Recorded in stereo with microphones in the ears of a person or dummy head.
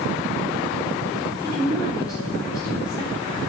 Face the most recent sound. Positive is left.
turn(degrees=20)  # may be behind; listen again after turning